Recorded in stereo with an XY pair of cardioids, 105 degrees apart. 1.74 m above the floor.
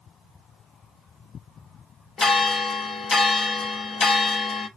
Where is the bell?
45° left, 0.8 m.